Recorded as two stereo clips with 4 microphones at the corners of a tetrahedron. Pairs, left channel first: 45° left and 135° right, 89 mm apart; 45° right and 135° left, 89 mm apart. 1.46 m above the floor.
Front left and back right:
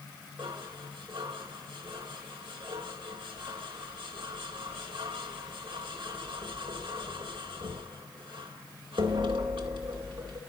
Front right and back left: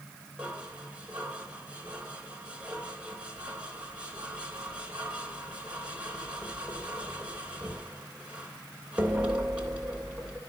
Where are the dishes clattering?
150° right, 3 m.